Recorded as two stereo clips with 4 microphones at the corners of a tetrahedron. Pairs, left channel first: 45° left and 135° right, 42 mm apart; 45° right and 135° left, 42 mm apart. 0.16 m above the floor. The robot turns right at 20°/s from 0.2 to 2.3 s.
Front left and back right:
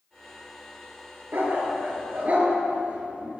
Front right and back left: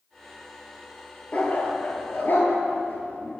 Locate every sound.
1.3 s a dog barking: 105° right, 1.2 m; by 3.4 s 85° right, 1.2 m